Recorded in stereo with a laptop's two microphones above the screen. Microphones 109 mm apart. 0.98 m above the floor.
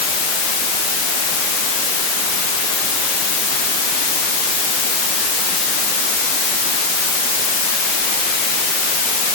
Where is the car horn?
No car horn in this recording.